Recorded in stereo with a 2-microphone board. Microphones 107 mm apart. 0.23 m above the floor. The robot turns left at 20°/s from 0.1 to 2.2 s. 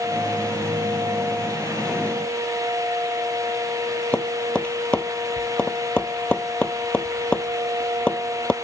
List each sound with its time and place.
4.1 s tapping: 10° left (ahead or behind)